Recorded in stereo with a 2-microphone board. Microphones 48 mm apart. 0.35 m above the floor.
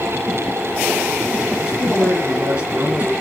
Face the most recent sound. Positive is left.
turn(degrees=-30)  # may be behind; listen again after turning